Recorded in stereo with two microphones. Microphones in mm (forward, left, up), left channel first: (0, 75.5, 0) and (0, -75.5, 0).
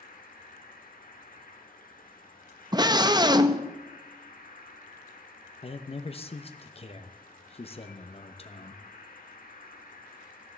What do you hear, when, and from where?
0.0 s an insect: 70° left (ahead or behind), 1.2 m
2.7 s a scream: 30° right (ahead or behind), 0.6 m
5.6 s a man speaking: 40° left (ahead or behind), 0.7 m